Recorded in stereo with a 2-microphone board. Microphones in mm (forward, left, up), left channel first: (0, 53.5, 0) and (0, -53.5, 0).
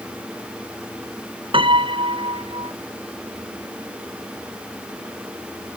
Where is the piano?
55° right (ahead or behind).